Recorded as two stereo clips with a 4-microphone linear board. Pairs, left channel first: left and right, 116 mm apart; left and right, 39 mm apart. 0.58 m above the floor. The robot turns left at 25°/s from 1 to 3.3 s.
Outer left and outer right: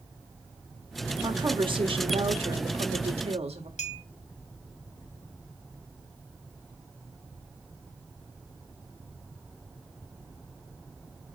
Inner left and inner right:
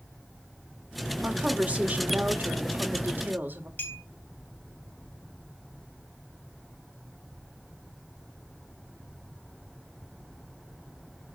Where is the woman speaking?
45° right, 1.9 m; by 3.7 s 95° right, 1.9 m.